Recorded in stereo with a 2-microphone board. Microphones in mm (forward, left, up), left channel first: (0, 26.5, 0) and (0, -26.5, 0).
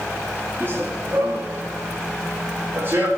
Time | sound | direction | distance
0.6 | running footsteps | 45° right (ahead or behind) | 3.5 m